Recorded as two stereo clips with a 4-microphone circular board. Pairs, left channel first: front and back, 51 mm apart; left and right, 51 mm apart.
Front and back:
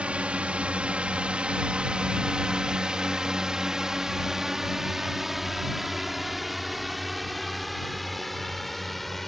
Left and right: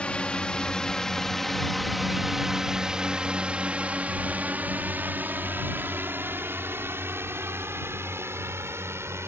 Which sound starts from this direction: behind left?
A drone, at 0.0 s.